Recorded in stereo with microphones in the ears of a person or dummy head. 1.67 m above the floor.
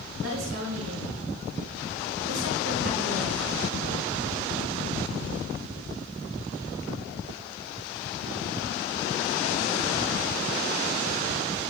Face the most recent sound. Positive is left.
turn(degrees=-75)  # may be behind; listen again after turning